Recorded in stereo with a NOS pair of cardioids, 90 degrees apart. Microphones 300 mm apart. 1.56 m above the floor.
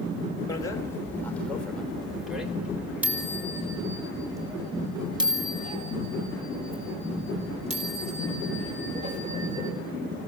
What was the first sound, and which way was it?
A bicycle bell, 10° left.